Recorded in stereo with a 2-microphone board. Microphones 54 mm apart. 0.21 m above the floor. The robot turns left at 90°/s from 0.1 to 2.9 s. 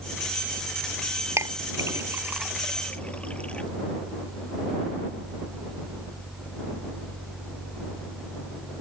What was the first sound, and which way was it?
A clink, 60° right (ahead or behind).